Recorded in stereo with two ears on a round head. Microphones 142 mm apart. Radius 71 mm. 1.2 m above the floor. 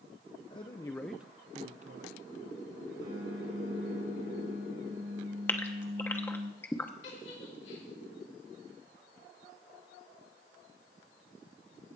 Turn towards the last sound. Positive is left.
turn(degrees=80)